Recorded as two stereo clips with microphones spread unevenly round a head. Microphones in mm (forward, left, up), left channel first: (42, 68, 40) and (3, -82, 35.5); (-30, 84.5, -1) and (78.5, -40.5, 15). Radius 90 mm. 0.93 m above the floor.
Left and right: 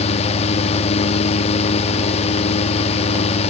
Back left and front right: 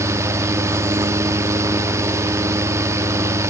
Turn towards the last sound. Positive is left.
turn(degrees=25)